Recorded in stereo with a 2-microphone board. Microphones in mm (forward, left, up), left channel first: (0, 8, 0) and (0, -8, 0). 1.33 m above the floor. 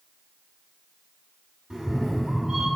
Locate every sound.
1.7 s a cat meowing: 45° right (ahead or behind), 1.7 m